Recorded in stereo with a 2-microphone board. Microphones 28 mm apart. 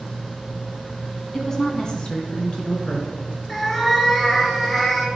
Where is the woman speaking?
15° left (ahead or behind), 1.4 m; by 3.2 s 45° left (ahead or behind), 3 m.